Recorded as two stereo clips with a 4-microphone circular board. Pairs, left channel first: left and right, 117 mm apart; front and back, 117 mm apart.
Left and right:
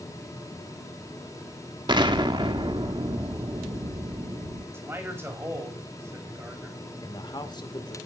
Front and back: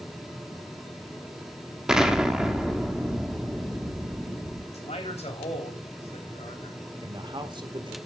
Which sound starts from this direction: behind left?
A man speaking, at 7.0 s.